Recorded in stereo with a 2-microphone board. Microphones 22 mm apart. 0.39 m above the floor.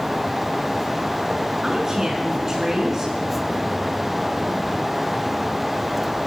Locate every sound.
1.6 s a woman speaking: 20° right (ahead or behind), 5 m